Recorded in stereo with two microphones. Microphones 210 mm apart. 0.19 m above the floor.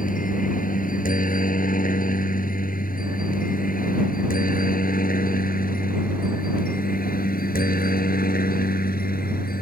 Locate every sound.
0.0 s a helicopter: 40° left (ahead or behind); by 9.6 s 45° left (ahead or behind)